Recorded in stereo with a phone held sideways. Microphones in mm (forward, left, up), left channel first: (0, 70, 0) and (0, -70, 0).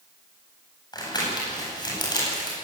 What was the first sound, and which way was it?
Crumpling, 30° left (ahead or behind).